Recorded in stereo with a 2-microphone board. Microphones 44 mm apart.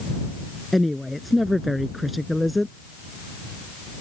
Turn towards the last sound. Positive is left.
turn(degrees=0)  # may be behind; listen again after turning